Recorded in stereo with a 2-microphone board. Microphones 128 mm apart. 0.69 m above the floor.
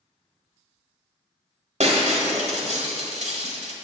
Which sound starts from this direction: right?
Breaking glass, at 1.8 s.